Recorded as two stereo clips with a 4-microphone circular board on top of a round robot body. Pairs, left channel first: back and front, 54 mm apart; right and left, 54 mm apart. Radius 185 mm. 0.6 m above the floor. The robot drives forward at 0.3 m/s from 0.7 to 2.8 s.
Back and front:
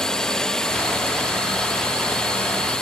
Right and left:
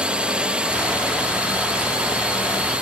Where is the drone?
120° left; by 2.8 s 125° left.